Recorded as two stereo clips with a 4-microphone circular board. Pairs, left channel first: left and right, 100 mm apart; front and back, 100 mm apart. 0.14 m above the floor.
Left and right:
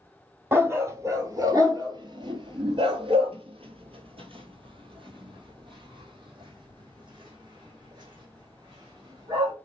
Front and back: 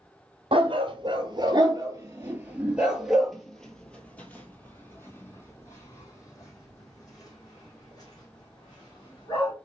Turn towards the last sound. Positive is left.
turn(degrees=-45)